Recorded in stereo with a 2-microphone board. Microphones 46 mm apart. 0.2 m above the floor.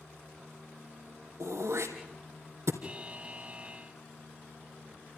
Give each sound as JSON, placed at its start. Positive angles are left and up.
{"t": 1.4, "sound": "throat clearing", "side_deg": -75, "distance_m": 3.0}
{"t": 2.8, "sound": "a buzzer", "side_deg": -25, "distance_m": 0.9}